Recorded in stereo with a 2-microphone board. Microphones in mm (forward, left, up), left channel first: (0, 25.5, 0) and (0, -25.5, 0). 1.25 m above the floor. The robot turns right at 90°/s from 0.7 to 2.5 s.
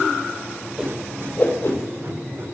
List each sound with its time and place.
0.8 s a whoosh: 10° right (ahead or behind), 2 m; by 2.5 s 40° left (ahead or behind), 2 m